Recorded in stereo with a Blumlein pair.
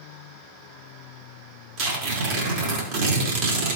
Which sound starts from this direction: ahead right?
Tearing paper, at 1.8 s.